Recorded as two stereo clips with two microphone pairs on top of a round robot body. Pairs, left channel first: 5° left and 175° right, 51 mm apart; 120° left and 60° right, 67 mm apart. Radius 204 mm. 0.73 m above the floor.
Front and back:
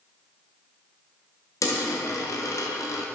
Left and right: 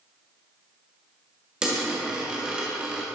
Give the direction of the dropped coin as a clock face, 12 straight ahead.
11 o'clock.